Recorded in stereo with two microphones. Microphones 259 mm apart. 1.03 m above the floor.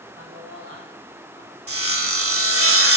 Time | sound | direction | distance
0.1 | a man speaking | 55° right (ahead or behind) | 5 m
1.7 | sawing | 55° right (ahead or behind) | 1.7 m